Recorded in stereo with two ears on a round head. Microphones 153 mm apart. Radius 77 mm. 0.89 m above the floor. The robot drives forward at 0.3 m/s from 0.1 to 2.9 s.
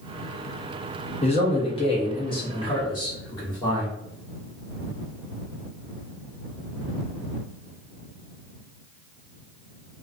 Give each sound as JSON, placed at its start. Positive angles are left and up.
{"t": 1.2, "sound": "a man speaking", "side_deg": 35, "distance_m": 0.9}